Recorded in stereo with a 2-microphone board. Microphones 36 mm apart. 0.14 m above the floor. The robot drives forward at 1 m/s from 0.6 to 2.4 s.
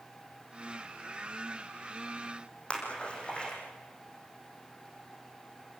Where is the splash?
30° left (ahead or behind), 6.5 m.